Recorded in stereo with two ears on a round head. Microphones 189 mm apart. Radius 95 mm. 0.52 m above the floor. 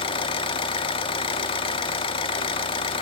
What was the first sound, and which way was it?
An engine running, 25° left (ahead or behind).